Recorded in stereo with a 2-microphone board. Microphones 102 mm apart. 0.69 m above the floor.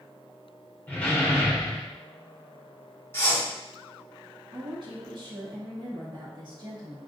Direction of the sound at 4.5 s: 50° right (ahead or behind).